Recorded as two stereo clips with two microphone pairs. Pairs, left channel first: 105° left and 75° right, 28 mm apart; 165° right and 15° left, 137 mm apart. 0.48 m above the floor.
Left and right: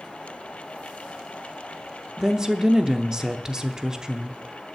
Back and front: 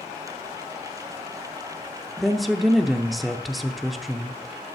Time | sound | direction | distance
2.2 | a woman speaking | 80° right | 0.7 m